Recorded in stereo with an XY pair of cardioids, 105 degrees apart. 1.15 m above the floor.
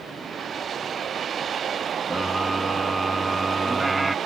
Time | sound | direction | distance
2.1 | a scream | 5° right | ?